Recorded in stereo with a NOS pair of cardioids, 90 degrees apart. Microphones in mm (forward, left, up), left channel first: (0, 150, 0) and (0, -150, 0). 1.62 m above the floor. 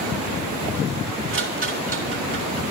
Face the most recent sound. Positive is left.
turn(degrees=-40)